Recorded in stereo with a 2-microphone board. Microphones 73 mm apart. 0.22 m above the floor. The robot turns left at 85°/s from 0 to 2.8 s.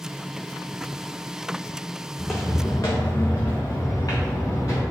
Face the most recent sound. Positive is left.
turn(degrees=50)  # may be behind; listen again after turning